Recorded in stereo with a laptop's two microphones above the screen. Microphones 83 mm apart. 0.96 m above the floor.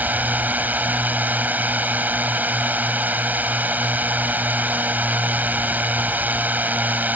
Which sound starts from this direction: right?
A drone, at 0.0 s.